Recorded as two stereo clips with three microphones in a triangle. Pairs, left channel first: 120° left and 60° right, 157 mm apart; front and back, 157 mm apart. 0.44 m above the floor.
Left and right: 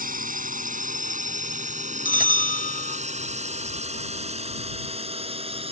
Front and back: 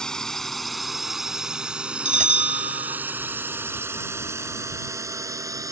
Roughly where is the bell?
Behind left.